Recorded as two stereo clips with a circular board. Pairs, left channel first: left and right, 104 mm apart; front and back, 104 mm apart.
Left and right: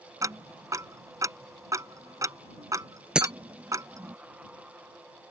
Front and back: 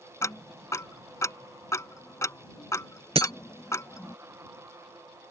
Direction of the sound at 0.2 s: 50° right.